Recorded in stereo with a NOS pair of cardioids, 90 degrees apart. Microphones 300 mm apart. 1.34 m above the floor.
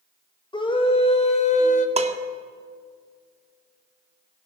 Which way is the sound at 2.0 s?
20° right.